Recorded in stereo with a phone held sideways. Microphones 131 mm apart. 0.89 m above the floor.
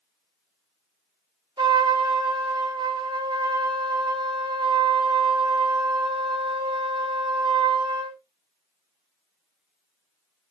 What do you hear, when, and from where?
1.6 s a trumpet: 35° right (ahead or behind), 0.6 m